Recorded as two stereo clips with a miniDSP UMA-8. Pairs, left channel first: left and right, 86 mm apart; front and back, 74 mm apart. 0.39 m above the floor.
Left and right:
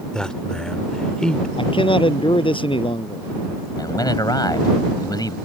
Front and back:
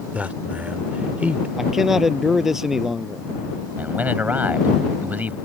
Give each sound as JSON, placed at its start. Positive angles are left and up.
{"t": 0.1, "sound": "a man speaking", "azimuth_deg": 155}
{"t": 1.6, "sound": "a man speaking", "azimuth_deg": 95}
{"t": 3.8, "sound": "a man speaking", "azimuth_deg": 115}